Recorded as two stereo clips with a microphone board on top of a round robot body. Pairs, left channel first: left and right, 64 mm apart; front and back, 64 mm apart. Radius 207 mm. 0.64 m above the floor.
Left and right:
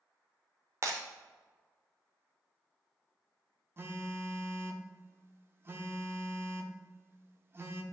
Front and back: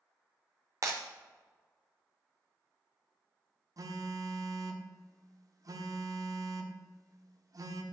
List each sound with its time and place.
0.8 s breaking glass: 140° right, 0.6 m
3.8 s a phone buzzing: 145° right, 1.0 m